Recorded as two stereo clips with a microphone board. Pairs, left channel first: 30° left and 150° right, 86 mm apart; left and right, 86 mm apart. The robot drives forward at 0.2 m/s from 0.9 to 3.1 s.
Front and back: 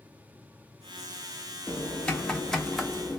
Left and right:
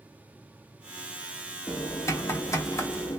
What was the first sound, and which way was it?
Typing on a keyboard, 95° left.